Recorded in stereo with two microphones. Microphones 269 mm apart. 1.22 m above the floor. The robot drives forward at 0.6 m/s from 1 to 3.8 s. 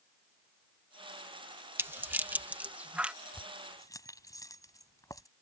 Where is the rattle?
10° right (ahead or behind); by 3.1 s 5° right (ahead or behind).